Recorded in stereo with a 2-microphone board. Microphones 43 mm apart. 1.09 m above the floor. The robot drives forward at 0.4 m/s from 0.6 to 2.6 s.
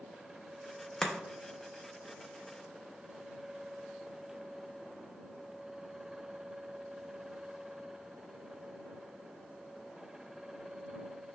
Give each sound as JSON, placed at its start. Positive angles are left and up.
{"t": 1.0, "sound": "chopping", "side_deg": 15, "distance_m": 0.5}